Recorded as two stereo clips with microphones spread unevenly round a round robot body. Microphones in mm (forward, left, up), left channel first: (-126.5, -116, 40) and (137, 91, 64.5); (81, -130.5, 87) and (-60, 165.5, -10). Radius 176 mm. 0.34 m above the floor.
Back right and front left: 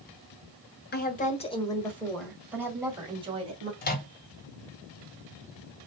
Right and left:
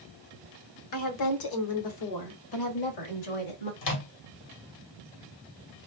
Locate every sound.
0.9 s a woman speaking: 95° right, 1.5 m; by 3.7 s 35° right, 2.5 m
3.8 s a microwave: 90° right, 1.5 m